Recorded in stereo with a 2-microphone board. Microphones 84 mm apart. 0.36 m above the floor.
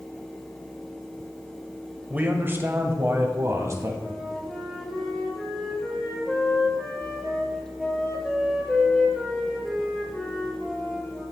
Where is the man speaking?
20° right (ahead or behind), 1.2 m; by 3.9 s 35° right (ahead or behind), 2 m.